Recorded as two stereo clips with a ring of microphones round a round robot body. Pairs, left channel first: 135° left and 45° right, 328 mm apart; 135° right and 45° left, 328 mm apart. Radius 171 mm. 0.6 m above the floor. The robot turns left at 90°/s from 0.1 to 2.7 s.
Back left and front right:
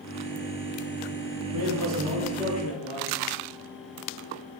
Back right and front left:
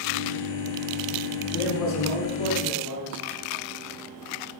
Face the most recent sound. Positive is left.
turn(degrees=-170)